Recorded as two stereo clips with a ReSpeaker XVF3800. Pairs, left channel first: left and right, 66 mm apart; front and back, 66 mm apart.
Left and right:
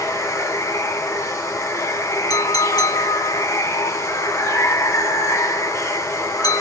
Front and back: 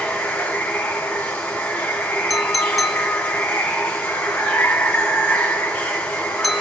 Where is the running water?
70° left, 1.3 m.